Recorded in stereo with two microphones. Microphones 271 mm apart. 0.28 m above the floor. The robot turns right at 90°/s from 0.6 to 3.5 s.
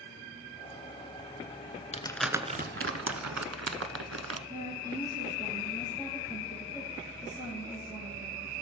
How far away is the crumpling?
About 0.7 m.